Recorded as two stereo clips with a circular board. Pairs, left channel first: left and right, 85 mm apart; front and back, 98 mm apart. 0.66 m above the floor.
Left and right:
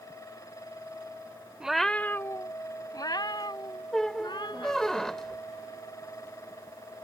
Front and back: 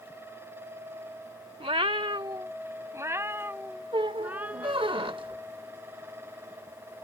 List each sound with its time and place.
1.6 s a cat meowing: 170° right; by 4.9 s 105° left
3.9 s a squeak: 170° left